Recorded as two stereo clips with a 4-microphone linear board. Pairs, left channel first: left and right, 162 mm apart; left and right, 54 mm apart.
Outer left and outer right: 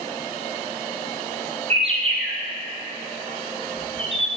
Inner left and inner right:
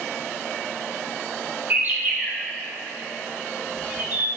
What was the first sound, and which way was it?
A bird, 35° right (ahead or behind).